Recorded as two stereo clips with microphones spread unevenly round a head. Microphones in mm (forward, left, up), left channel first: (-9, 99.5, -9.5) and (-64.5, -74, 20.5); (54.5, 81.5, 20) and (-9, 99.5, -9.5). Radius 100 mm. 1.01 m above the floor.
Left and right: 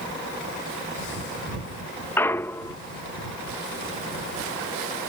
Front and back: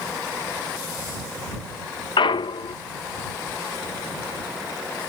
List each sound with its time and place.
2.2 s a clunk: 5° right